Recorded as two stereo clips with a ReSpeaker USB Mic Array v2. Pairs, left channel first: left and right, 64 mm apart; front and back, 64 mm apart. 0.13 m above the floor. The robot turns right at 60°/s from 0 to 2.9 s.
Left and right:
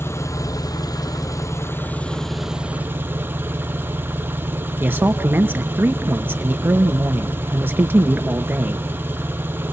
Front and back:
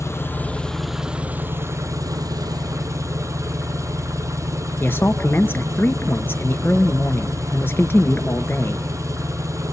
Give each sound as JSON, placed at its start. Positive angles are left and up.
{"t": 0.0, "sound": "an engine running", "azimuth_deg": 40, "distance_m": 1.2}
{"t": 4.8, "sound": "a man speaking", "azimuth_deg": -45, "distance_m": 2.5}